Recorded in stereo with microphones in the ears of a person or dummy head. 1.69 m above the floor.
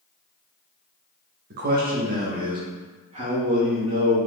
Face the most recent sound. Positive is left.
turn(degrees=-35)  # may be behind; listen again after turning